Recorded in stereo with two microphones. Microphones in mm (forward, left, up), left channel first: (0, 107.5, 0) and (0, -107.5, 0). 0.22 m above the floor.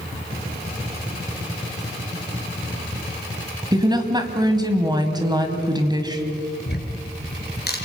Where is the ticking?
50° left (ahead or behind), 3.5 m.